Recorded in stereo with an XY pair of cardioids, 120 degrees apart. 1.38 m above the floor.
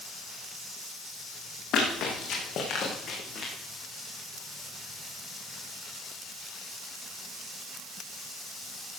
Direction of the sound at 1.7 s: 55° left.